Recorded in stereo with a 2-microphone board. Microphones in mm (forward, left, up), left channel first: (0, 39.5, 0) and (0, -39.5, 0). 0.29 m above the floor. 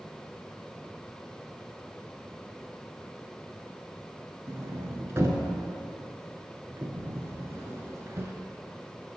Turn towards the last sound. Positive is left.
turn(degrees=-35)  # may be behind; listen again after turning